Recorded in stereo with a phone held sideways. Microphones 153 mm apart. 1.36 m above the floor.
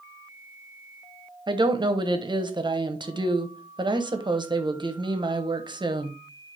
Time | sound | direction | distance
1.5 | a woman speaking | 30° right (ahead or behind) | 1.1 m